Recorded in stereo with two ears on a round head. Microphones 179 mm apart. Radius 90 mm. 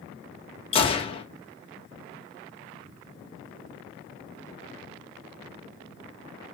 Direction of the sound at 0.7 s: 30° left (ahead or behind).